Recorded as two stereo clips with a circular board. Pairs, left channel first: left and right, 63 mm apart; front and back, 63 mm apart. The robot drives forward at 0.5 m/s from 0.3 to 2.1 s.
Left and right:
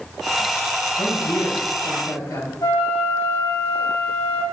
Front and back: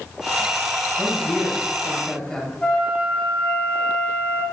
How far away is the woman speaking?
About 6 m.